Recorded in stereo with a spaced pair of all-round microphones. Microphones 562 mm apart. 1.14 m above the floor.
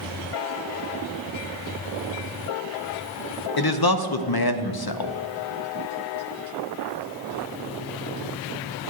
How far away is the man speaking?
About 0.5 m.